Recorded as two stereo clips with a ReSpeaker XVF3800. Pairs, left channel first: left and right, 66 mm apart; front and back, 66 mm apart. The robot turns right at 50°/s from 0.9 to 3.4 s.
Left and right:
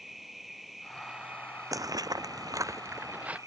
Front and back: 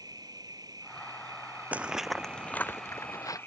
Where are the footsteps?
115° right; by 3.4 s 20° right.